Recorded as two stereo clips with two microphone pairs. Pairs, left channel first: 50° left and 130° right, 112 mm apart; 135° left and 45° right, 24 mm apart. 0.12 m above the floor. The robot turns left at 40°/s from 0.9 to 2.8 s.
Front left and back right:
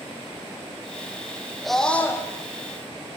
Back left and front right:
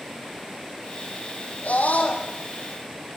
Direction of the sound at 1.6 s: 140° left.